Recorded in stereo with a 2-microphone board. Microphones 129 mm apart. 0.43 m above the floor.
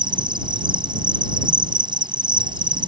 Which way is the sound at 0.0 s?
35° right (ahead or behind).